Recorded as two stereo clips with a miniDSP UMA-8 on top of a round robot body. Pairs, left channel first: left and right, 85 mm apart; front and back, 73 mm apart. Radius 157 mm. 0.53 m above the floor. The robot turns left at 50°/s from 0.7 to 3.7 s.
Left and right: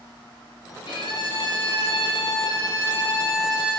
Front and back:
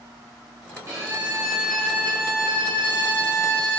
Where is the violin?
125° left, 5 m; by 3.8 s 15° right, 5 m.